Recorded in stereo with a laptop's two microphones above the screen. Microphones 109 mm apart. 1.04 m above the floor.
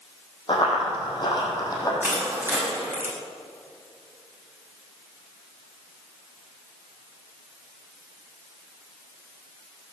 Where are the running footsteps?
45° left (ahead or behind), 3 m; by 1.9 s 35° left (ahead or behind), 2.5 m.